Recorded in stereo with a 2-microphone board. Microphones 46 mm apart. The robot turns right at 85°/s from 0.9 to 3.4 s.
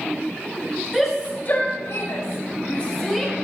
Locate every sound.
0.9 s a shout: centre (ahead or behind), 5.5 m; by 3.4 s 25° right (ahead or behind), 5.5 m